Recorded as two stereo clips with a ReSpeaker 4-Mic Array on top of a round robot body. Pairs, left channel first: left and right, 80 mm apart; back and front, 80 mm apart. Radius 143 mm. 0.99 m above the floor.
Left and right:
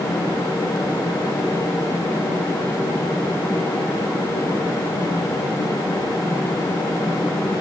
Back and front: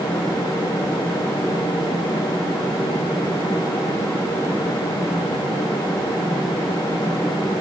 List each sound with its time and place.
Only background noise.